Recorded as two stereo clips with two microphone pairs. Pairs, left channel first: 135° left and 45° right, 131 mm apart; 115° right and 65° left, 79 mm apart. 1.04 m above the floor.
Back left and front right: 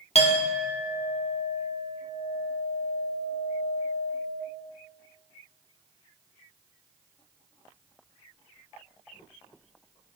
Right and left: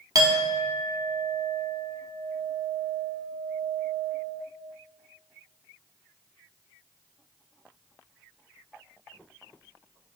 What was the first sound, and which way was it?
A clink, 100° left.